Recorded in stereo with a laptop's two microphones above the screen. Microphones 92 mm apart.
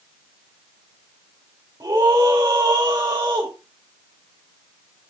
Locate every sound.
1.8 s a scream: 40° right (ahead or behind), 3.5 m